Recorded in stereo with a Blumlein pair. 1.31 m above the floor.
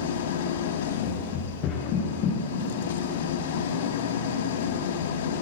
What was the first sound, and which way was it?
An engine running, 55° left.